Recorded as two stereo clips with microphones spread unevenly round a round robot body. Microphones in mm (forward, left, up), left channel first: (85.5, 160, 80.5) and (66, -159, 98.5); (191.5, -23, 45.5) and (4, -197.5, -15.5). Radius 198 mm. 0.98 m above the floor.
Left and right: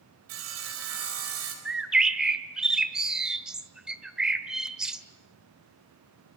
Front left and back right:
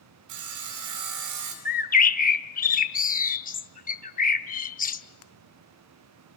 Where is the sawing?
150° right, 4 m.